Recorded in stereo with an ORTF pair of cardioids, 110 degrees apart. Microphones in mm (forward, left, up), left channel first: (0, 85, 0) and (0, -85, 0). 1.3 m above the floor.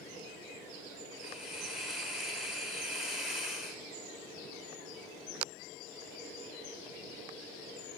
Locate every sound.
1.2 s a hiss: straight ahead, 2.5 m